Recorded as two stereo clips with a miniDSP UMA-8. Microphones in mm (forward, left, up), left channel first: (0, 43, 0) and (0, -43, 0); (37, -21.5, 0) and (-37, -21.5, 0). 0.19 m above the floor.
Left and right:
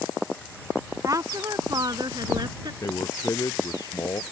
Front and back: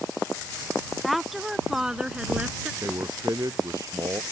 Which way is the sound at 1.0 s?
90° right.